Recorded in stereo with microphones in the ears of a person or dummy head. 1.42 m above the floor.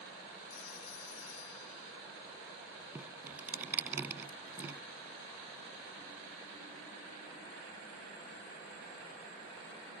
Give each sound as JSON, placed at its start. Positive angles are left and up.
{"t": 0.5, "sound": "a phone ringing", "side_deg": 85}
{"t": 3.0, "sound": "dripping", "side_deg": -10}